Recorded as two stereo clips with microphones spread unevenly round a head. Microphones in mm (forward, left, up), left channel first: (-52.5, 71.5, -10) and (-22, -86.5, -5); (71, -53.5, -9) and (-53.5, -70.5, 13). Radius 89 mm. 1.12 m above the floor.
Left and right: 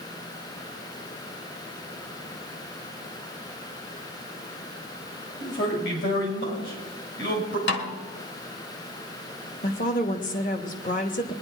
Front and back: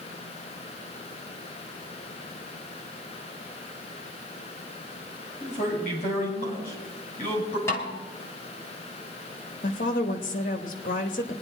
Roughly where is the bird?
I don't hear a bird.